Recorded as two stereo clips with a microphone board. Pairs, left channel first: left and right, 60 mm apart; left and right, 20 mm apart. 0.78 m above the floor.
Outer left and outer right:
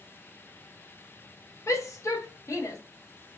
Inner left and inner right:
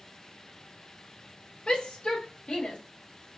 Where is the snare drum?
No snare drum in this recording.